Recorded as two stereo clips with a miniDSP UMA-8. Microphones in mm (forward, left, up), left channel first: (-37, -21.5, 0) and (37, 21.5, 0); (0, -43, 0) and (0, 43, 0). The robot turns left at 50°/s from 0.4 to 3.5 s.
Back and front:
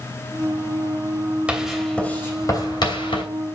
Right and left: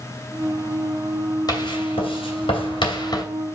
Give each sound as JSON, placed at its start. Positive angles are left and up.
{"t": 1.5, "sound": "writing", "azimuth_deg": -50, "distance_m": 2.5}